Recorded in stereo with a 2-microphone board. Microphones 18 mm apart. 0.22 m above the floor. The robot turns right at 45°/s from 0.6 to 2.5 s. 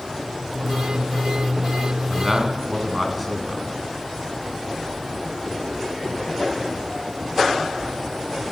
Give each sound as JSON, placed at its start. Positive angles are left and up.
{"t": 2.1, "sound": "a man speaking", "side_deg": -15, "distance_m": 2.5}